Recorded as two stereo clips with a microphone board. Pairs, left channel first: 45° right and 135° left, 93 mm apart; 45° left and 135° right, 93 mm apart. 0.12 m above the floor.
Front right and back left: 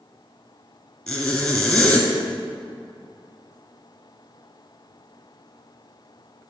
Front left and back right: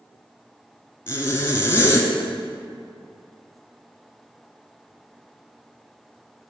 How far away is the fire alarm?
No fire alarm in this recording.